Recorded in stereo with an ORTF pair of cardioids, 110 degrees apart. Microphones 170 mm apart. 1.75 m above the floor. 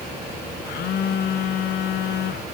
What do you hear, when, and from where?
0.7 s a phone buzzing: 65° left, 1.6 m